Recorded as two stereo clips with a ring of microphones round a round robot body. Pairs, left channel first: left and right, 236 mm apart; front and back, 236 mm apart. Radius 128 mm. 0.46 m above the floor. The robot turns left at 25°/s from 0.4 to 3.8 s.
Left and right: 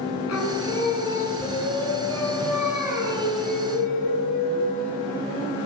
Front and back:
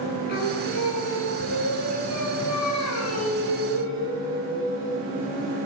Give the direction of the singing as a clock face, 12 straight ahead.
10 o'clock.